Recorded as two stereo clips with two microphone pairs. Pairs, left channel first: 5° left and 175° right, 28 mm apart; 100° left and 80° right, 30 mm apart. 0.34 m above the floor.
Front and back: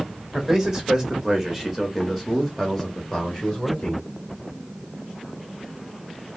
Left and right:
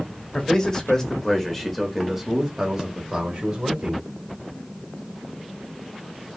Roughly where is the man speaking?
Behind left.